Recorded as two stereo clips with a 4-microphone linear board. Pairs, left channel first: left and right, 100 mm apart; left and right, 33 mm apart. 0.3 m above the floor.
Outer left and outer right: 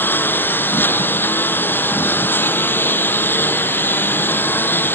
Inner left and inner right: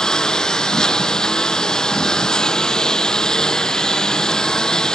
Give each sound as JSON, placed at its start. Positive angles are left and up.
{"t": 0.0, "sound": "a lawn mower", "side_deg": 20}